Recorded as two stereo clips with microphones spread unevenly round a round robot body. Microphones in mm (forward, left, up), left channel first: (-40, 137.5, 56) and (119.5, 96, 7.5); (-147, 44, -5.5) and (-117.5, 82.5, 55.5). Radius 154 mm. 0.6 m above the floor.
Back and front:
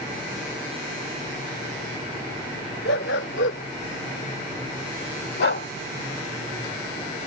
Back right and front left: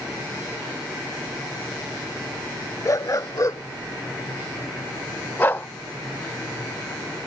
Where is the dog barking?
150° right; by 5.7 s 155° left.